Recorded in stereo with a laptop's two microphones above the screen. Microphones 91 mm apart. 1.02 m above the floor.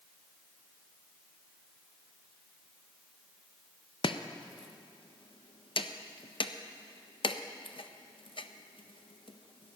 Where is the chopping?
70° left (ahead or behind), 0.5 m.